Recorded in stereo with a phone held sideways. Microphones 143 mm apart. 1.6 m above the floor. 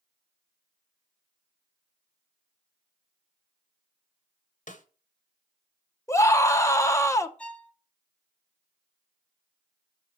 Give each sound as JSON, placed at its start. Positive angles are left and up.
{"t": 4.7, "sound": "a snare drum", "side_deg": 60, "distance_m": 1.0}
{"t": 6.1, "sound": "a scream", "side_deg": 20, "distance_m": 0.8}
{"t": 7.4, "sound": "a violin", "side_deg": 5, "distance_m": 0.6}